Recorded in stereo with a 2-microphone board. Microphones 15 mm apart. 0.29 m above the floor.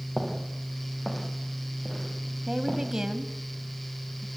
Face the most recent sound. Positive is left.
turn(degrees=-50)  # may be behind; listen again after turning